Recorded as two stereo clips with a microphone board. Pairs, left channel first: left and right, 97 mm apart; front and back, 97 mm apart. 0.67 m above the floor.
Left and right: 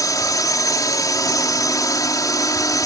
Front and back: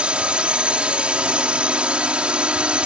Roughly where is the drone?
Left.